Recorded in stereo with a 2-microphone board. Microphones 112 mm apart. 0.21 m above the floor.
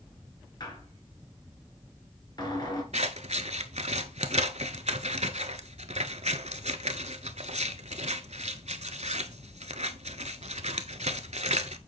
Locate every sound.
0.6 s a squeak: 40° left (ahead or behind), 2.5 m
2.9 s scissors: 80° right, 0.7 m